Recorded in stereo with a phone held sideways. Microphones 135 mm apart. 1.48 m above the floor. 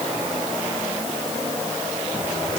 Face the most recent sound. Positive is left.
No sound to turn to.